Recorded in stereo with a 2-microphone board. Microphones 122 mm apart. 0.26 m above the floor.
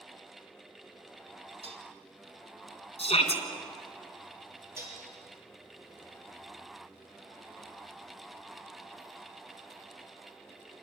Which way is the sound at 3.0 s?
60° left (ahead or behind).